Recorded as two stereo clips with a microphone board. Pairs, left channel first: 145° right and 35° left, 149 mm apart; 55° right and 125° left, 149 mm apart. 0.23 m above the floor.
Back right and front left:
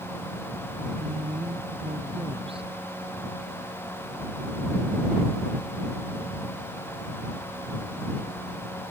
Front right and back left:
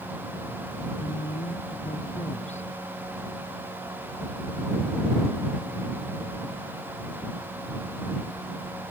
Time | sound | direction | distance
1.0 | a woman speaking | 15° right | ?